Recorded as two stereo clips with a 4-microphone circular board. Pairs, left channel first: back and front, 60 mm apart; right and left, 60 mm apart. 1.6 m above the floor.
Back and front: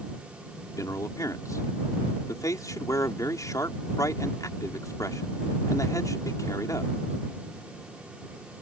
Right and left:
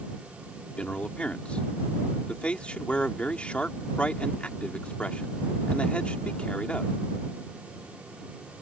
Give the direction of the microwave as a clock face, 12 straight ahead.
I don't hear a microwave.